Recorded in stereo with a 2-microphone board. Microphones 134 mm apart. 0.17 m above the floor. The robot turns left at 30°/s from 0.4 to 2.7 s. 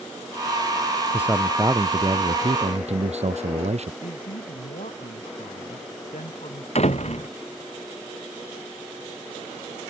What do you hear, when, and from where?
1.1 s a man speaking: 10° right; by 3.9 s 55° right
4.0 s a woman speaking: 70° left (ahead or behind)
6.8 s a door slam: 55° left (ahead or behind)